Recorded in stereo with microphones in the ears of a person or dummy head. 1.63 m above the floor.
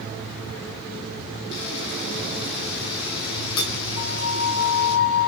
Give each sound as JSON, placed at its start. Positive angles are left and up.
{"t": 1.5, "sound": "a camera shutter", "side_deg": 75, "distance_m": 8.0}
{"t": 4.0, "sound": "a flute", "side_deg": 75, "distance_m": 6.0}